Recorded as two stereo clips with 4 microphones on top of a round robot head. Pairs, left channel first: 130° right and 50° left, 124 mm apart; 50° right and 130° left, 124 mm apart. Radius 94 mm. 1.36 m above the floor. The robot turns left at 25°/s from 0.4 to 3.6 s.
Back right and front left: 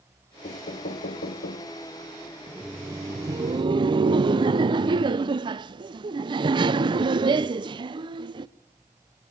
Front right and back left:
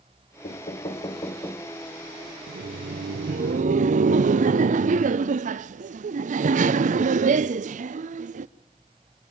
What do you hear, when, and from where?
0.4 s knocking: 95° right, 1.0 m; by 1.7 s 125° right, 1.0 m
2.5 s laughter: 130° left, 0.5 m; by 8.5 s 105° left, 0.5 m